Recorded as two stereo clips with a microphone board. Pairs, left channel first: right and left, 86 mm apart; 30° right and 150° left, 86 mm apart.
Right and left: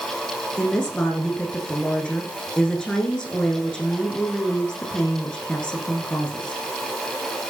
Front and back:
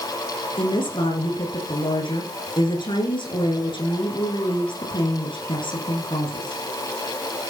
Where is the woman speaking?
10° right, 7 m.